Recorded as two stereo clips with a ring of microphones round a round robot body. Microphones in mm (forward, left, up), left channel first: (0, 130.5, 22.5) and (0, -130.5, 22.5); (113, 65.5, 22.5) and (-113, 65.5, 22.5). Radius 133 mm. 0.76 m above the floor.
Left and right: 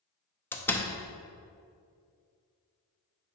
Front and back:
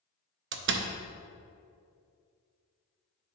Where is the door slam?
170° left, 0.6 m.